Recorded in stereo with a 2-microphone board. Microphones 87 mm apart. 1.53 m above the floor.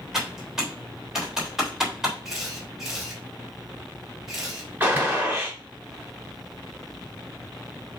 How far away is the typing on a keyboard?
About 3 m.